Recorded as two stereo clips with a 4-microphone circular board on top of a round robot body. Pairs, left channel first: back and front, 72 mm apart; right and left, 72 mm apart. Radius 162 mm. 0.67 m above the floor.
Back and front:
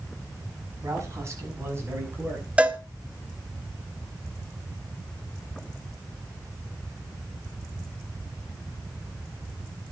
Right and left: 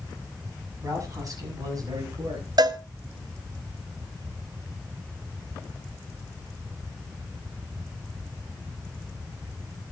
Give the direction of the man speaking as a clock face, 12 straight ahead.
10 o'clock.